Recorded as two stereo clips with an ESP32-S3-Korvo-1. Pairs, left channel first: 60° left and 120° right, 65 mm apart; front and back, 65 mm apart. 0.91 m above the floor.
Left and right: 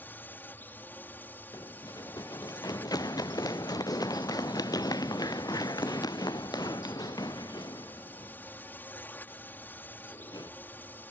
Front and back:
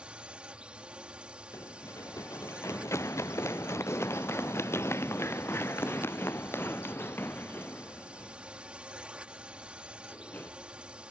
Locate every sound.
0.0 s a drone: 110° left
1.5 s running footsteps: 40° left; by 10.5 s 65° left